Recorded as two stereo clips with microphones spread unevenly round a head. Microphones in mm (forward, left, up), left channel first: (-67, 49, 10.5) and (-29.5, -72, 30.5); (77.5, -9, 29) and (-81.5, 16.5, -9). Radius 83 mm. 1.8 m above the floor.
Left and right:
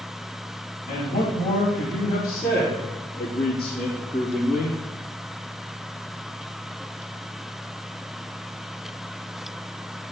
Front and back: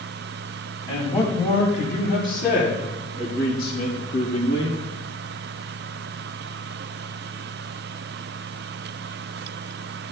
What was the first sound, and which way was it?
A man speaking, 50° left.